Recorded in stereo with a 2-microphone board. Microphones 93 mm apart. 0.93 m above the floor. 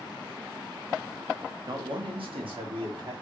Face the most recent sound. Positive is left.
turn(degrees=-70)  # may be behind; listen again after turning